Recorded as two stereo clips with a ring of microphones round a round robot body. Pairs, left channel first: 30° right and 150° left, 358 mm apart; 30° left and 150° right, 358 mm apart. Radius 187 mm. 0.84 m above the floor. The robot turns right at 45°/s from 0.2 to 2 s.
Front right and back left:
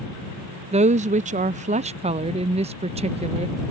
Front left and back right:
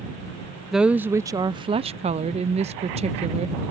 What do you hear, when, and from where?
0.7 s a woman speaking: 125° left; by 3.6 s straight behind